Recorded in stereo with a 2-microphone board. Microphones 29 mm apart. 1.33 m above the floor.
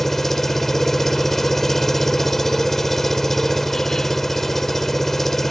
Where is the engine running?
10° left (ahead or behind).